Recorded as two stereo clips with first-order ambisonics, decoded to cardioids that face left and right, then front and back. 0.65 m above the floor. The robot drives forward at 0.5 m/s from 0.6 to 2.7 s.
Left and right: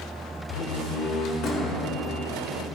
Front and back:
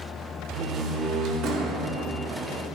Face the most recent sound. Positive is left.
turn(degrees=150)